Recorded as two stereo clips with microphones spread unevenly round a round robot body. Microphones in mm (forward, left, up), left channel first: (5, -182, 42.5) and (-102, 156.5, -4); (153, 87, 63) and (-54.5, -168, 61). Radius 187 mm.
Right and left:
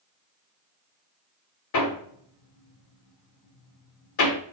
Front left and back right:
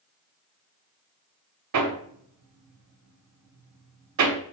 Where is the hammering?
110° right, 1.4 m.